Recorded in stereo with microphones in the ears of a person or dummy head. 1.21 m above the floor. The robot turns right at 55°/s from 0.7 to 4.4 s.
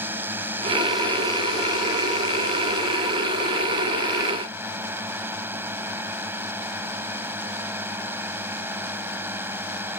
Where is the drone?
10° right; by 10.0 s 170° right.